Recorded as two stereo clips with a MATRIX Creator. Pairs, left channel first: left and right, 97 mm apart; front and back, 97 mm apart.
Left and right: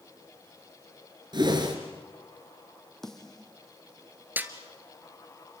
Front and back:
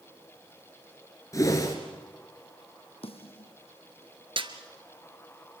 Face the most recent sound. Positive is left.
turn(degrees=-160)